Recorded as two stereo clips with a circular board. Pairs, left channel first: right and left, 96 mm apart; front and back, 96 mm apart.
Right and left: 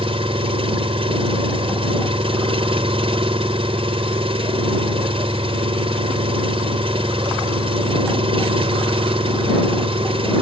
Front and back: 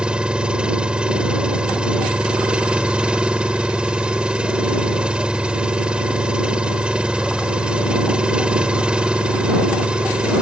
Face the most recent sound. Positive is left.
turn(degrees=100)